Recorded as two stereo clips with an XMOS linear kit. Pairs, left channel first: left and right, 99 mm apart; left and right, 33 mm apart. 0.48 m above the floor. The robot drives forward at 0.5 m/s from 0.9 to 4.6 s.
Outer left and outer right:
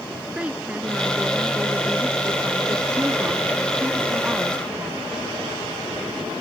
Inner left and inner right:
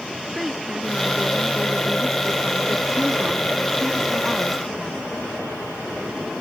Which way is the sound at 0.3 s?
10° right (ahead or behind).